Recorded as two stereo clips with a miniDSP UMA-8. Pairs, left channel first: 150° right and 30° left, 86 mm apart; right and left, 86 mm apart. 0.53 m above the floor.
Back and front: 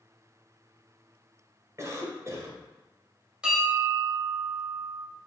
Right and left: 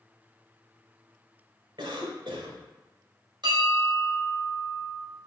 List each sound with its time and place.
1.8 s a cough: 80° left, 1.8 m
3.4 s a bell: 110° left, 3 m